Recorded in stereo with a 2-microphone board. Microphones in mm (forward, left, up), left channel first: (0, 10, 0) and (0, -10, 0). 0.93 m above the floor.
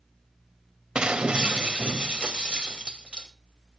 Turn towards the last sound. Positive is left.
turn(degrees=-50)  # may be behind; listen again after turning